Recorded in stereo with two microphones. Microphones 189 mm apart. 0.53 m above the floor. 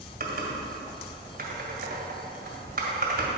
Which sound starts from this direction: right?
Typing on a keyboard, at 0.2 s.